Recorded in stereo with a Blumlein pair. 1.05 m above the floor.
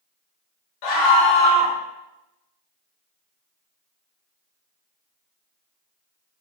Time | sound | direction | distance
0.8 | a scream | 40° left | 1.0 m